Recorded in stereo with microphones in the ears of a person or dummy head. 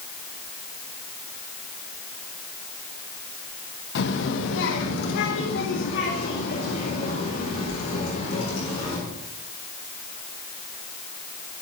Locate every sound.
4.0 s a child speaking: 70° left (ahead or behind), 1.5 m; by 9.0 s 45° left (ahead or behind), 4 m